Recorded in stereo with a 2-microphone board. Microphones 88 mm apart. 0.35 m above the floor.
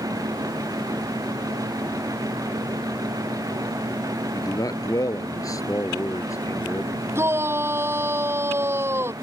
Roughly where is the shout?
Right.